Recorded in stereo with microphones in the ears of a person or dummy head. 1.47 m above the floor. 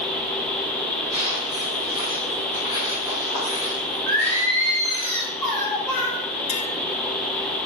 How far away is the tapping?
About 3.5 m.